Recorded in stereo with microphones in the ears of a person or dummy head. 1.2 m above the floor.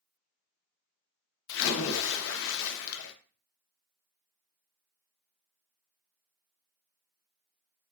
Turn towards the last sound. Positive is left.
turn(degrees=70)  # may be behind; listen again after turning